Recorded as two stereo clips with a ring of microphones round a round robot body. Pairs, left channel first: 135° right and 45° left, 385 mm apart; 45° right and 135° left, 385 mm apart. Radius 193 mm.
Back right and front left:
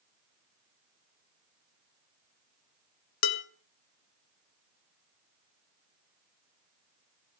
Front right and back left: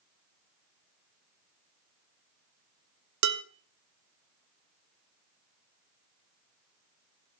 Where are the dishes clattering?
175° right, 1.0 m.